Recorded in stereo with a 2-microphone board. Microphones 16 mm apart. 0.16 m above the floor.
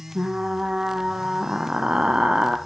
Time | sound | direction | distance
0.1 | frying | 70° right (ahead or behind) | 1.0 m